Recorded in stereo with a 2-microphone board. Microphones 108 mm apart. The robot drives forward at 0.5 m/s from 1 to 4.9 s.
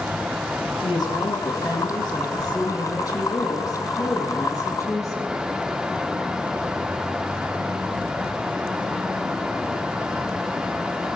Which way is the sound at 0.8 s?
45° left (ahead or behind).